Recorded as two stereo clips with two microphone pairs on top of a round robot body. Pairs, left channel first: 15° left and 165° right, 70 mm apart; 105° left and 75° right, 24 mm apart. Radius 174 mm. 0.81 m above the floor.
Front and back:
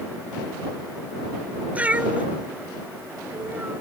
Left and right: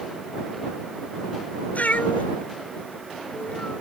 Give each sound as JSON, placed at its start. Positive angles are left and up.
{"t": 1.8, "sound": "a cat meowing", "azimuth_deg": 125}